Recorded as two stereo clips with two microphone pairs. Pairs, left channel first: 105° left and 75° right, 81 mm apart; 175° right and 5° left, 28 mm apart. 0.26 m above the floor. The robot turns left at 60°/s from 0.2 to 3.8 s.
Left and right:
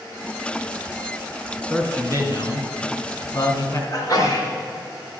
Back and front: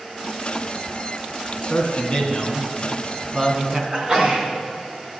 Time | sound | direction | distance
1.7 | a man speaking | straight behind | 2 m
3.9 | a sneeze | 65° left | 3 m